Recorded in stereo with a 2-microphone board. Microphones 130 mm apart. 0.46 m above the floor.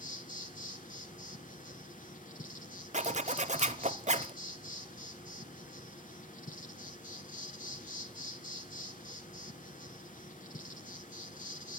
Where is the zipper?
60° right (ahead or behind), 0.6 m.